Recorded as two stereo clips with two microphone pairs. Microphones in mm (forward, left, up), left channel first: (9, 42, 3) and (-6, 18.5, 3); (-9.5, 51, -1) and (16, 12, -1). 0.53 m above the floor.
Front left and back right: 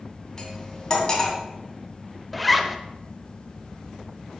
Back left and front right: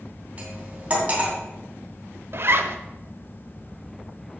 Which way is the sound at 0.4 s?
5° left.